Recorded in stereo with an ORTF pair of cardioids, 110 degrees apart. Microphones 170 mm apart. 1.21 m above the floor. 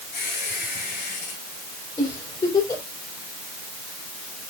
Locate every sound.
0.1 s a squeak: 60° left, 5 m
2.0 s a giggle: 25° left, 4.5 m